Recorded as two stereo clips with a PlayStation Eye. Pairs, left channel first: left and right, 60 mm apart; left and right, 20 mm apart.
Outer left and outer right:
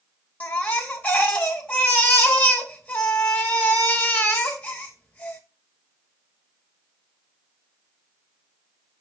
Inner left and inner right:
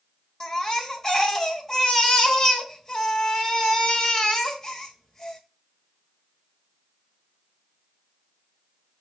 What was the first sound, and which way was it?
A baby crying, 25° left (ahead or behind).